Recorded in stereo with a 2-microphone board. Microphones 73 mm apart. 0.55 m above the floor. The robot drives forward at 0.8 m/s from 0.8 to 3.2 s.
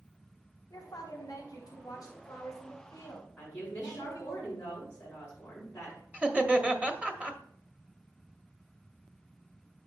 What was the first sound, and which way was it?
A woman speaking, 65° left (ahead or behind).